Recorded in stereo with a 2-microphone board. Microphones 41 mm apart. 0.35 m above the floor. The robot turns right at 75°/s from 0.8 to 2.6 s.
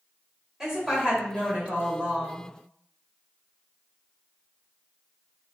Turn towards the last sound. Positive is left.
turn(degrees=-25)